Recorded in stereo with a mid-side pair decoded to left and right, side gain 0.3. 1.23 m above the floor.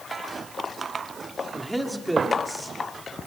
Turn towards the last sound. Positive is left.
turn(degrees=-20)